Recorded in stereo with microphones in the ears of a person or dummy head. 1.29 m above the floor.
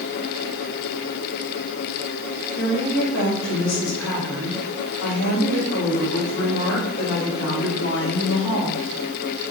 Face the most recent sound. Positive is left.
turn(degrees=70)  # may be behind; listen again after turning